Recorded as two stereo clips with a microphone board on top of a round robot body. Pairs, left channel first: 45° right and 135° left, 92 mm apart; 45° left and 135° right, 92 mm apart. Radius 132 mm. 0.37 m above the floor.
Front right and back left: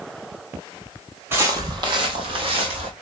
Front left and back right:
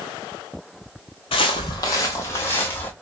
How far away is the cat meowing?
I don't hear a cat meowing.